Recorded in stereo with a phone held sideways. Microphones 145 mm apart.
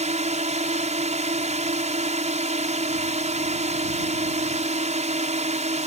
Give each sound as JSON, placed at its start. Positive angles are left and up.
{"t": 0.0, "sound": "a drone", "side_deg": -55}